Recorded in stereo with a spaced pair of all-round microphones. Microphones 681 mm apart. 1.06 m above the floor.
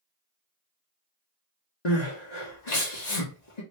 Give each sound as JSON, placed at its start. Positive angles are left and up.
{"t": 1.9, "sound": "crying", "side_deg": 75, "distance_m": 1.3}